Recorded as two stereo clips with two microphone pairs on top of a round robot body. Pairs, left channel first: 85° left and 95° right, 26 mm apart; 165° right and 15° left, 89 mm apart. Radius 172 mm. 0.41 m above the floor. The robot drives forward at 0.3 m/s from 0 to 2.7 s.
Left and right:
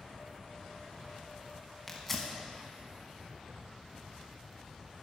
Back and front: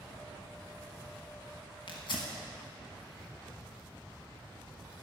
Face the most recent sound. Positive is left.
turn(degrees=165)